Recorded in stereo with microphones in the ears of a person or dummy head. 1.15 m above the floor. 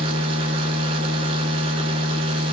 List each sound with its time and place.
0.0 s a machine running: 30° right (ahead or behind), 1.4 m